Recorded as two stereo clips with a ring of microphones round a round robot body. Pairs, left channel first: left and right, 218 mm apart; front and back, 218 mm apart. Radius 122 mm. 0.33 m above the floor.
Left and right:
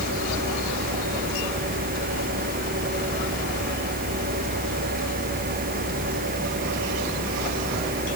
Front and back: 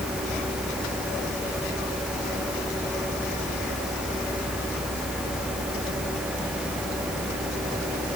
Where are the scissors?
I don't hear scissors.